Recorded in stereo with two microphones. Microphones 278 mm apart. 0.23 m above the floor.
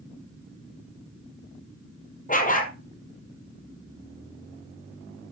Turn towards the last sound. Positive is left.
turn(degrees=30)  # may be behind; listen again after turning